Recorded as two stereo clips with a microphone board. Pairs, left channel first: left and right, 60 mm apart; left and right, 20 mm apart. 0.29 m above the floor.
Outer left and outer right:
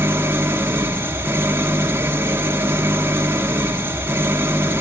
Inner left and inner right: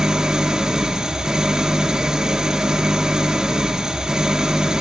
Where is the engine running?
40° right (ahead or behind), 1.2 m.